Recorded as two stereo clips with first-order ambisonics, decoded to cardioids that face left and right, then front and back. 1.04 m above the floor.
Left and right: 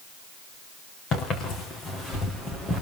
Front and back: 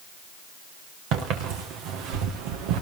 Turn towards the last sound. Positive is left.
turn(degrees=165)